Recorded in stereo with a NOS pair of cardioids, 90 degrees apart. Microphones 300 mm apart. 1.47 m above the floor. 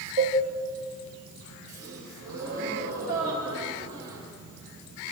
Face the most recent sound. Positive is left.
turn(degrees=-55)